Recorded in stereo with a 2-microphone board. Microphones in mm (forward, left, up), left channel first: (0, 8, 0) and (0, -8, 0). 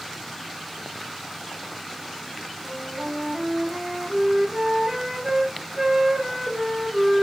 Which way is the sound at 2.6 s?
40° right (ahead or behind).